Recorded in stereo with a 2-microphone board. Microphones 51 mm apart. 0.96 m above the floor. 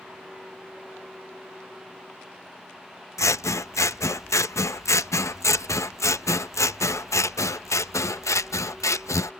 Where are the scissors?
75° left (ahead or behind).